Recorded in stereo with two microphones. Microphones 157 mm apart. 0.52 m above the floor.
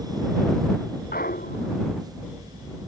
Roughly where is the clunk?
Left.